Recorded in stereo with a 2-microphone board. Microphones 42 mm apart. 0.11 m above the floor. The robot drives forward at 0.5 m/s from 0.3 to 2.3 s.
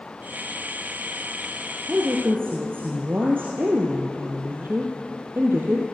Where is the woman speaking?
55° right (ahead or behind), 2.5 m.